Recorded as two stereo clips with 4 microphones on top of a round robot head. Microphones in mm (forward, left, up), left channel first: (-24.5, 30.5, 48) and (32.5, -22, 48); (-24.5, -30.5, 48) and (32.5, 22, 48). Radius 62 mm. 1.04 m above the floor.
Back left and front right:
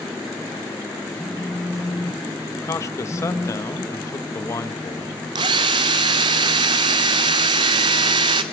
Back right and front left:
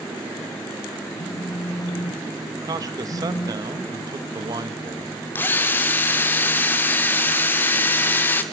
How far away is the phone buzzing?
About 2 m.